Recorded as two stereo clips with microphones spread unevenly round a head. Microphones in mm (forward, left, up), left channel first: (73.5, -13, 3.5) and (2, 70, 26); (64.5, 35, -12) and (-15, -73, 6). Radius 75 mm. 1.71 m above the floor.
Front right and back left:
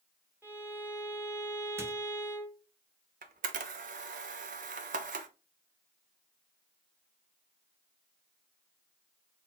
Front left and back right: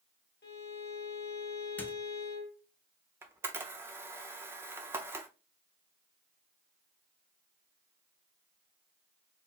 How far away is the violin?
About 1.4 m.